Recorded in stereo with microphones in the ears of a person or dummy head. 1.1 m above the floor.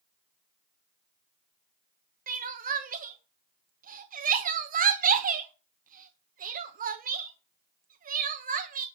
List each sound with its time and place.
2.3 s crying: 30° right (ahead or behind), 1.1 m